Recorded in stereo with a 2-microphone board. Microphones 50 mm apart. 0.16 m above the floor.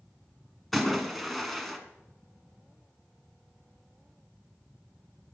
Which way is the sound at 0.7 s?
Centre (ahead or behind).